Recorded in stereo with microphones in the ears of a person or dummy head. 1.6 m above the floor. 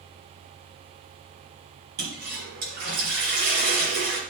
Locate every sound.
2.0 s a toilet flushing: 55° right (ahead or behind), 3.5 m